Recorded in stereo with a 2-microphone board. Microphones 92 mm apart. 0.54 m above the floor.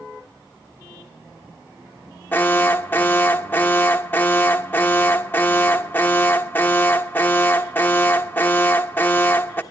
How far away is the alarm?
About 1.4 m.